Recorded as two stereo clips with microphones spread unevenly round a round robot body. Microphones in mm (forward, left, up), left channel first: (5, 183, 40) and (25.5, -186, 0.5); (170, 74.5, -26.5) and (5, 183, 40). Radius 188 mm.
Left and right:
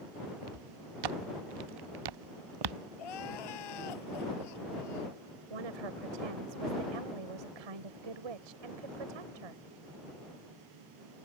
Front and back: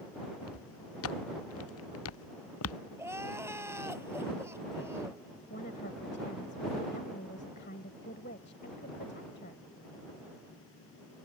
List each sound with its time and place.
0.4 s footsteps: 60° right; by 2.8 s 55° right
3.0 s crying: 70° left
5.5 s a woman speaking: 95° right